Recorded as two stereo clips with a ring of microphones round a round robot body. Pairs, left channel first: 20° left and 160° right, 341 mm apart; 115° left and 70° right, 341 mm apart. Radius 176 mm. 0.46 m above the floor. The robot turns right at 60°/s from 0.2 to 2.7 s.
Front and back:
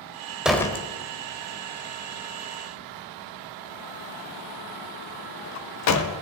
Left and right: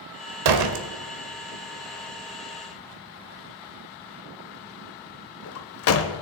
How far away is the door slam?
About 1.2 m.